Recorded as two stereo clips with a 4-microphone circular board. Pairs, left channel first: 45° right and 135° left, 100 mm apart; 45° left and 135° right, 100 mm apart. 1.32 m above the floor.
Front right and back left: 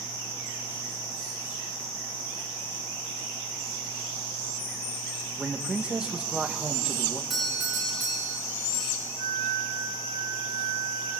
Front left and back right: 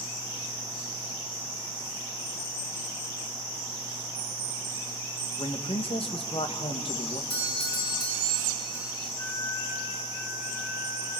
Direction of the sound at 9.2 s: 95° left.